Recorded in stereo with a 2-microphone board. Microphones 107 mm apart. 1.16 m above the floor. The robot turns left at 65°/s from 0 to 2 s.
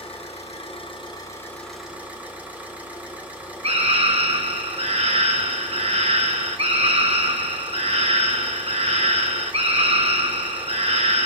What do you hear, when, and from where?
0.0 s an engine running: 115° left, 3.5 m; by 11.3 s 15° right, 3.5 m
3.6 s a scream: 65° right (ahead or behind), 0.9 m